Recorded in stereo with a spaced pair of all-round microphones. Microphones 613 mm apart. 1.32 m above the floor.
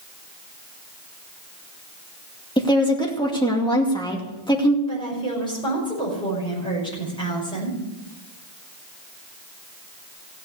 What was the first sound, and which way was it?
A woman speaking, 5° left (ahead or behind).